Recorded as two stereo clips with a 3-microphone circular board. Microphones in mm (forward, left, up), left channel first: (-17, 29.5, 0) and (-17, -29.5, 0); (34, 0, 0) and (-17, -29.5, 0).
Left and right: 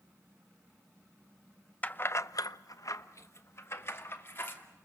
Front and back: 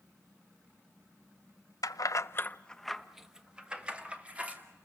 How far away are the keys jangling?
About 0.7 m.